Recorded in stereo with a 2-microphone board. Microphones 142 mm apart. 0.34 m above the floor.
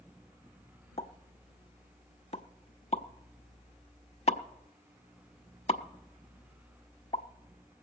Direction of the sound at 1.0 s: 50° left (ahead or behind).